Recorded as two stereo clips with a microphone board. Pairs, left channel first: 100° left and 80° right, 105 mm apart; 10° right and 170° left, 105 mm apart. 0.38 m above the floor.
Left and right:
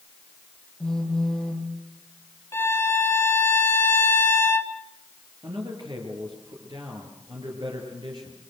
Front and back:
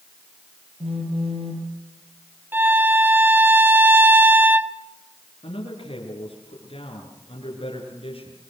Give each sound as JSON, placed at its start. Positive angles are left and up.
{"t": 0.8, "sound": "a phone buzzing", "azimuth_deg": -175, "distance_m": 4.0}
{"t": 2.5, "sound": "a violin", "azimuth_deg": 125, "distance_m": 1.5}
{"t": 5.4, "sound": "a man speaking", "azimuth_deg": -35, "distance_m": 6.0}